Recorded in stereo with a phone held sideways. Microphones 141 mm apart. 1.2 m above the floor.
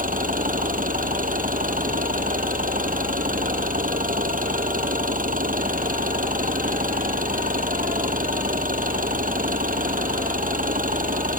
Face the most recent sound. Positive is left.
turn(degrees=-75)  # may be behind; listen again after turning